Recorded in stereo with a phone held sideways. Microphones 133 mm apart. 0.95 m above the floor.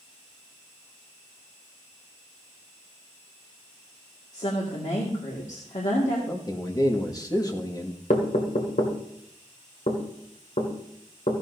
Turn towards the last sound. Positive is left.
turn(degrees=70)  # may be behind; listen again after turning